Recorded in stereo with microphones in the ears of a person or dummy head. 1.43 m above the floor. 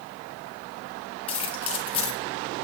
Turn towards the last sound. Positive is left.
turn(degrees=30)  # may be behind; listen again after turning